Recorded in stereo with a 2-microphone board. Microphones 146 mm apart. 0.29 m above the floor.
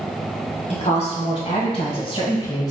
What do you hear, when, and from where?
0.7 s a woman speaking: 50° left (ahead or behind), 1.7 m; by 2.7 s 25° left (ahead or behind), 1.1 m